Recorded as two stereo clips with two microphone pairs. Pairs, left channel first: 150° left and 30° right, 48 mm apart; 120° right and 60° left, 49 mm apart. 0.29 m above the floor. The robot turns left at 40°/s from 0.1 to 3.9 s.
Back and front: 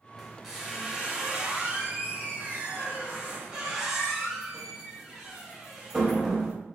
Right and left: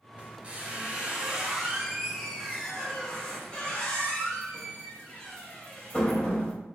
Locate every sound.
0.2 s a squeak: 55° left, 0.8 m; by 6.5 s 95° right, 0.8 m